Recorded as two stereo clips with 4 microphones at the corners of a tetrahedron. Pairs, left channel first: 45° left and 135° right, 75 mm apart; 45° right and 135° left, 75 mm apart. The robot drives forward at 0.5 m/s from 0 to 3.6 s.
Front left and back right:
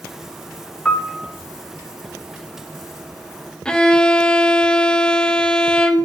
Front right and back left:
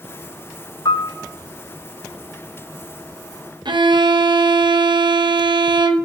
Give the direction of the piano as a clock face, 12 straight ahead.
1 o'clock.